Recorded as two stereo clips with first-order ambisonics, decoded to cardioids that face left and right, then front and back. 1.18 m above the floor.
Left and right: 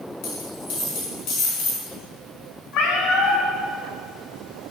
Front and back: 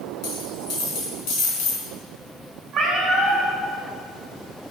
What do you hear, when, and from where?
0.2 s a dropped coin: 45° left, 3 m
2.7 s a cat meowing: 105° left, 2.5 m